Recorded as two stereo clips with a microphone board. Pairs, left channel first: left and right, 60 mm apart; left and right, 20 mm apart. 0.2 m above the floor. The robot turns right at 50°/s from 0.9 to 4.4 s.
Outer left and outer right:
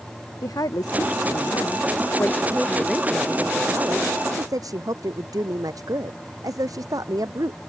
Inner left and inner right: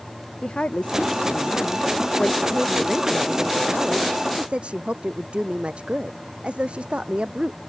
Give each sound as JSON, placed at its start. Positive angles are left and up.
{"t": 0.4, "sound": "a woman speaking", "azimuth_deg": 80}